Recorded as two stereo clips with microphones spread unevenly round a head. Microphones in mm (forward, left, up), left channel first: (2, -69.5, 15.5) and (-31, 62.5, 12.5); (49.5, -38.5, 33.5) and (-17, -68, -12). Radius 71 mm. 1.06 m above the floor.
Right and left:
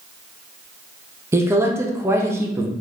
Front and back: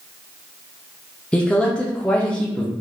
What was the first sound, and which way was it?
A man speaking, 155° left.